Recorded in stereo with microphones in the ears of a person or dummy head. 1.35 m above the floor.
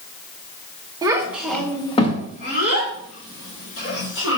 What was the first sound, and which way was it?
A child speaking, 20° right (ahead or behind).